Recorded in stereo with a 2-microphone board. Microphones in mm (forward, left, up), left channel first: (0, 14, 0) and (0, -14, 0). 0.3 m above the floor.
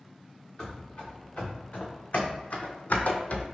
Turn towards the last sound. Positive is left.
turn(degrees=50)  # may be behind; listen again after turning